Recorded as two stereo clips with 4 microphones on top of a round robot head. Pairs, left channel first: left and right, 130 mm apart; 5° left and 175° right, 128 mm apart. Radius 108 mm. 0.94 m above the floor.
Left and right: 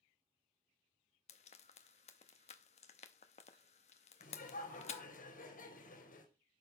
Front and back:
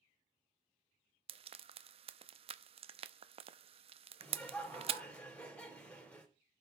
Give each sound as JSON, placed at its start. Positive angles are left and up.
{"t": 1.3, "sound": "frying", "azimuth_deg": 140, "distance_m": 0.6}
{"t": 4.2, "sound": "laughter", "azimuth_deg": 90, "distance_m": 3.5}